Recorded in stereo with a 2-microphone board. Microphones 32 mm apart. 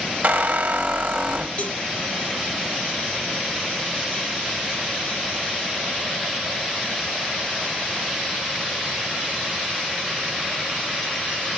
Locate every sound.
0.2 s a squeak: 65° right (ahead or behind), 0.8 m
1.6 s a cowbell: 30° left (ahead or behind), 5.5 m